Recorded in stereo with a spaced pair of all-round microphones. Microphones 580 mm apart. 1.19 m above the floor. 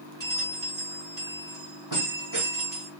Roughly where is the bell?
Right.